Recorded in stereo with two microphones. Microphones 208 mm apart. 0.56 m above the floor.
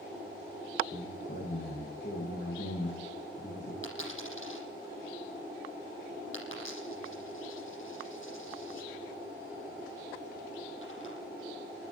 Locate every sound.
0.9 s a man speaking: 60° left (ahead or behind), 7.5 m
3.8 s a dropped coin: 70° left (ahead or behind), 7.5 m